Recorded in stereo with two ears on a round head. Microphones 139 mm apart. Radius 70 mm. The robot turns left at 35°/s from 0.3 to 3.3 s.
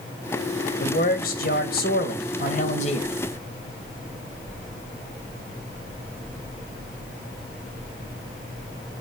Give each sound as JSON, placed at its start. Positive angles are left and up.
{"t": 0.8, "sound": "a man speaking", "azimuth_deg": 125, "distance_m": 2.0}